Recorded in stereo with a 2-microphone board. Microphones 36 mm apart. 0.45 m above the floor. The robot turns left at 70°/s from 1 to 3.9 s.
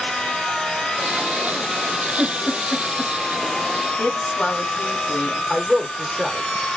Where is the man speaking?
5° left (ahead or behind), 1.1 m.